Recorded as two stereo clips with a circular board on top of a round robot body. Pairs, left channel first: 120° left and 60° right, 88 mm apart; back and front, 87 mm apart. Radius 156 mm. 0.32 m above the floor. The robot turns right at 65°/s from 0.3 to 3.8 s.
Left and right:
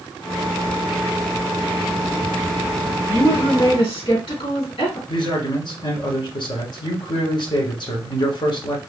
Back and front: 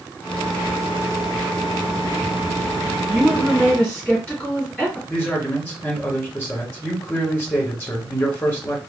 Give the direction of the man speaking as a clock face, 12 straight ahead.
8 o'clock.